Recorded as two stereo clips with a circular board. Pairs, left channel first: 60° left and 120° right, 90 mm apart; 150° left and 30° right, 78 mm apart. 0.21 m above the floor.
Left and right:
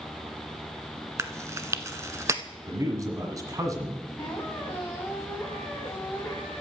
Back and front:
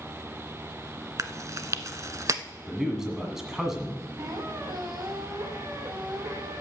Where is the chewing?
70° right, 0.6 m.